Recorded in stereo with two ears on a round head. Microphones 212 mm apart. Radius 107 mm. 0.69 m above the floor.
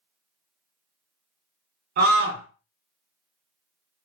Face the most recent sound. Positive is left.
turn(degrees=-45)  # may be behind; listen again after turning